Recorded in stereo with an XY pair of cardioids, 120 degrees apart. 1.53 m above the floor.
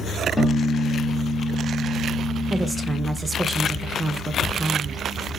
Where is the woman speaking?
15° right, 0.5 m.